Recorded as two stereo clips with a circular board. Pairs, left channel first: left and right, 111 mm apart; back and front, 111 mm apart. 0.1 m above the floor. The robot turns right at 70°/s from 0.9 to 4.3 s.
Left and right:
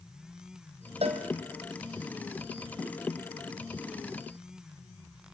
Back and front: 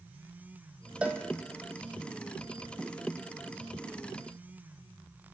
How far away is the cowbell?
About 2.5 m.